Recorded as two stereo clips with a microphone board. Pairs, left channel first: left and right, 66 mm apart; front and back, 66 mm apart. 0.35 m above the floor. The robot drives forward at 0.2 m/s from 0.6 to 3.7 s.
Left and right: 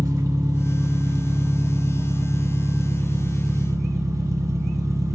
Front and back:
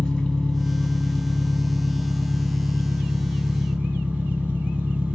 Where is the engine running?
75° right, 0.8 m; by 5.2 s 115° right, 0.9 m.